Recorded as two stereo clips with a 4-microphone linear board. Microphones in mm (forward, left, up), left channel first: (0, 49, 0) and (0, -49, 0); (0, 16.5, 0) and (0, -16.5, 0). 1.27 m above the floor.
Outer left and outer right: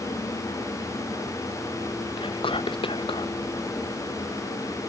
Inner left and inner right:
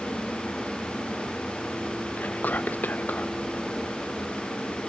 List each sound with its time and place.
2.2 s whispering: 65° left (ahead or behind), 0.5 m